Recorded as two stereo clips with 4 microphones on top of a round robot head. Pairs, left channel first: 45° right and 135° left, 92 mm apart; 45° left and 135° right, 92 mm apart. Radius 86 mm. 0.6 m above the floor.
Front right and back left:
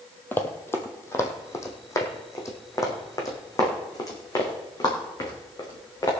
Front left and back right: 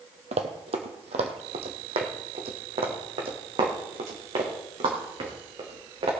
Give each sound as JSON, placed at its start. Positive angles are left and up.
{"t": 0.3, "sound": "running footsteps", "azimuth_deg": -115, "distance_m": 1.3}